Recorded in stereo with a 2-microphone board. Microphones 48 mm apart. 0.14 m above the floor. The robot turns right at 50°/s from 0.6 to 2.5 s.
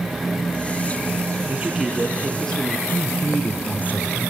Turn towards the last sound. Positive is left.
turn(degrees=35)  # may be behind; listen again after turning